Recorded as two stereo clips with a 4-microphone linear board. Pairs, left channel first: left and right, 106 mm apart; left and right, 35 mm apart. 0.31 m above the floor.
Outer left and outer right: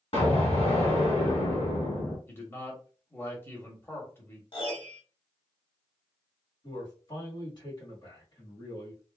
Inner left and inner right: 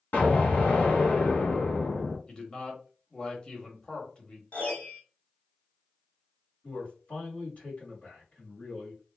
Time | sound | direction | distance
0.1 | an explosion | 70° left (ahead or behind) | 1.3 m
2.3 | a man speaking | 20° left (ahead or behind) | 1.1 m
4.5 | a piano | 55° left (ahead or behind) | 1.5 m
6.6 | a man speaking | 40° left (ahead or behind) | 1.7 m